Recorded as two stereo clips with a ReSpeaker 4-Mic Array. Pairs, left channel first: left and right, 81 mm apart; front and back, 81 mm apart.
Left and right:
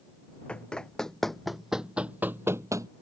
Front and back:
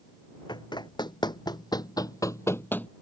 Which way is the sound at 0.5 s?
15° left.